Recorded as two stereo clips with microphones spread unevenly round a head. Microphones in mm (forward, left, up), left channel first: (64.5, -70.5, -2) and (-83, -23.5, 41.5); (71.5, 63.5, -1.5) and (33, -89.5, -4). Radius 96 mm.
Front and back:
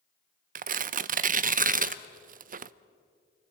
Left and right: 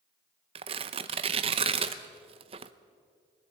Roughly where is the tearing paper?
Behind.